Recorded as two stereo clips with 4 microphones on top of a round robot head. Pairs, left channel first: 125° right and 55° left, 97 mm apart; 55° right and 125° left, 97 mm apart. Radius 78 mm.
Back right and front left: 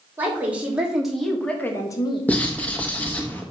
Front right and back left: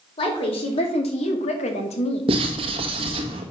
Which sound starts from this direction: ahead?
A woman speaking, at 0.2 s.